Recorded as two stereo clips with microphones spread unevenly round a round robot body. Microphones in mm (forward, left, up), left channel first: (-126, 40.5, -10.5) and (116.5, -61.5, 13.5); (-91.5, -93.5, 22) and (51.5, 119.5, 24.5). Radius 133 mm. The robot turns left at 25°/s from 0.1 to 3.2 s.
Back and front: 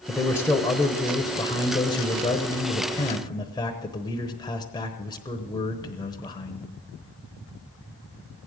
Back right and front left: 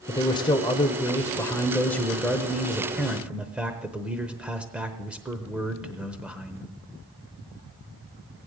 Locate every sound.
0.1 s a man speaking: 150° right, 0.9 m; by 6.7 s 135° left, 0.9 m